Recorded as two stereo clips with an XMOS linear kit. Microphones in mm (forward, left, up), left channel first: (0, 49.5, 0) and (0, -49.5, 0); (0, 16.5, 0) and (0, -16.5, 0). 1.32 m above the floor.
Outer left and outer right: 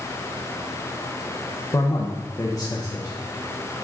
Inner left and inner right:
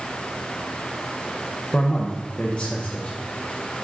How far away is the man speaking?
About 1.0 m.